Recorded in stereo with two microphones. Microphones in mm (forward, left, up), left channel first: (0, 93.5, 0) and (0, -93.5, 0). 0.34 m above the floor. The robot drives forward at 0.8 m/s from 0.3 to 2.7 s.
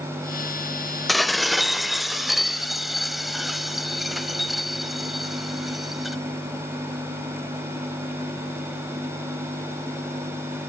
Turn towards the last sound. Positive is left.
turn(degrees=0)  # may be behind; listen again after turning